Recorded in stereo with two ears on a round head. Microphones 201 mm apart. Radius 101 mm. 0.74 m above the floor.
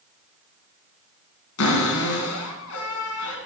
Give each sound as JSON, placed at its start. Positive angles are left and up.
{"t": 1.6, "sound": "a cupboard door", "side_deg": 70, "distance_m": 2.0}